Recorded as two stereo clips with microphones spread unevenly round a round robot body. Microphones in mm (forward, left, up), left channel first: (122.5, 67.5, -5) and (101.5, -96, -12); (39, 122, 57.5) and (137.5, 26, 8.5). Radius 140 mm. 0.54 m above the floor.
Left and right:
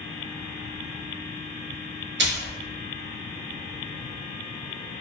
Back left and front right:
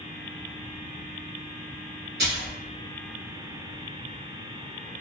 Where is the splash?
90° right, 0.7 m.